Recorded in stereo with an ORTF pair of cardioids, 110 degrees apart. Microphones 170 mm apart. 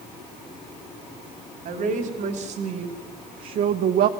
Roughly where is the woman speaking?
Ahead right.